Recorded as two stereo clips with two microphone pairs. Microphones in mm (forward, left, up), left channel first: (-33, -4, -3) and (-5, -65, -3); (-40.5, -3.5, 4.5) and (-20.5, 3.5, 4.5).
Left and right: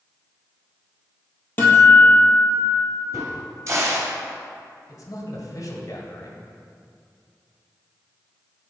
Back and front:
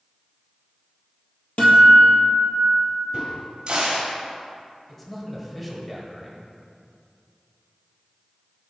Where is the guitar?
Straight behind, 1.6 m.